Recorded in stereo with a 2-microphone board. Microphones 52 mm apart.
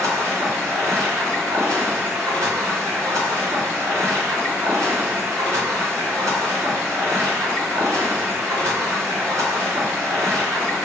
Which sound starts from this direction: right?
Running water, at 0.0 s.